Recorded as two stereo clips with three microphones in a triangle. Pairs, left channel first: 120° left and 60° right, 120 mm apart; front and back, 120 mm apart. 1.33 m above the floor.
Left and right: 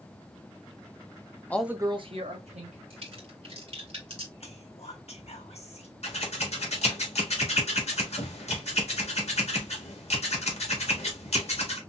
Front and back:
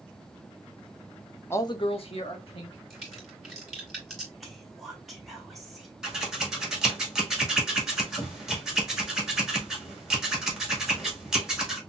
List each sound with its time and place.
1.5 s a man speaking: 55° left, 0.5 m; by 2.8 s 40° right, 1.9 m
2.9 s a crack: 90° right, 2 m
4.4 s whispering: 90° left, 1.6 m
6.0 s scissors: 95° left, 1.6 m